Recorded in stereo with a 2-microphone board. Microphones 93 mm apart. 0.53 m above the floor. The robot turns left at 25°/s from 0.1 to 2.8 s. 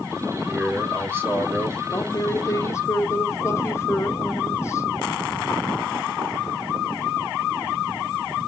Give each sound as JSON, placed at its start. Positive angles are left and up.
{"t": 0.5, "sound": "a man speaking", "azimuth_deg": -20, "distance_m": 1.7}
{"t": 1.9, "sound": "a woman speaking", "side_deg": 35, "distance_m": 0.8}